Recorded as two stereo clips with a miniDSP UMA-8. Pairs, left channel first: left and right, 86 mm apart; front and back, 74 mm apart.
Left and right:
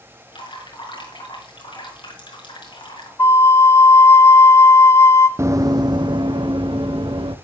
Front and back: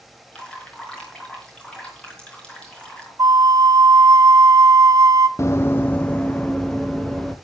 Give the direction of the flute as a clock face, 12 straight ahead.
7 o'clock.